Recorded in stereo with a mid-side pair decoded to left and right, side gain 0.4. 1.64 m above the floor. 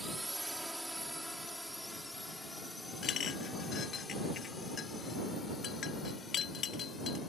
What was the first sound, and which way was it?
A drone, 10° right.